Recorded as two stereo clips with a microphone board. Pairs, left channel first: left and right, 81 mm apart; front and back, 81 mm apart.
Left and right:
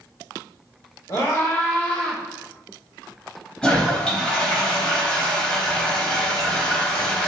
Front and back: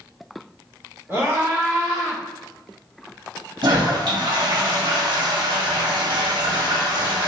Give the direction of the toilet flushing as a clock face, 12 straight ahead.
6 o'clock.